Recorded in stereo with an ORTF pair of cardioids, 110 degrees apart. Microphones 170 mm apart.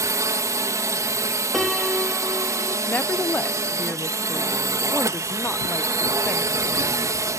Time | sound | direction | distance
0.0 | a drone | 20° right | ?
1.5 | a piano | straight ahead | ?
2.9 | a woman speaking | 10° left | ?